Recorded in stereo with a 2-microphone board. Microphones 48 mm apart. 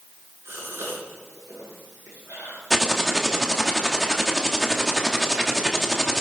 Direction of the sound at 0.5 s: 80° right.